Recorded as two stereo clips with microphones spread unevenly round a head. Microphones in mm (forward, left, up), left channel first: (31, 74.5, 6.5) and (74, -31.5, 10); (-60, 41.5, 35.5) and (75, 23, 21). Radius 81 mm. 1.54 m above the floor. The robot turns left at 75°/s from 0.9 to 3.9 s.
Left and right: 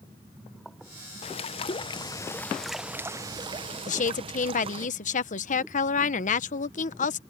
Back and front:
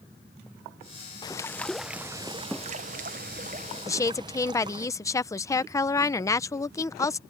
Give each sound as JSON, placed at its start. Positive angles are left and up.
{"t": 1.2, "sound": "a bird", "azimuth_deg": 130}
{"t": 3.9, "sound": "a woman speaking", "azimuth_deg": 110}